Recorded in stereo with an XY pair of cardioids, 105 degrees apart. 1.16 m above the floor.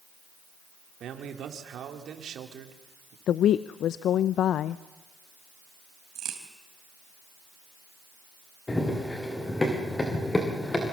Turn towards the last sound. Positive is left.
turn(degrees=20)